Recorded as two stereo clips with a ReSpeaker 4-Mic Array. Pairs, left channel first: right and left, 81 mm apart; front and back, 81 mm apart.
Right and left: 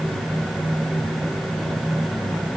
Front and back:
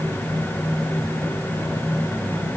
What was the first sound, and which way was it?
Only background noise.